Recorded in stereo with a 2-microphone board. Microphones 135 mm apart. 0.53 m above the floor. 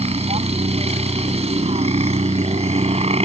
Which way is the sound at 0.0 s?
50° right (ahead or behind).